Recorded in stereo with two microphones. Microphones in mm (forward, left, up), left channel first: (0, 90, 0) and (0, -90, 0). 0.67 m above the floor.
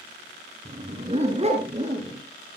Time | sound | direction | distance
0.7 | a dog barking | 45° right (ahead or behind) | 1.5 m